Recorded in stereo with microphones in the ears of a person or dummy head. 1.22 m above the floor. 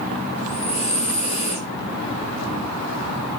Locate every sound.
0.4 s breathing: 40° left (ahead or behind), 0.9 m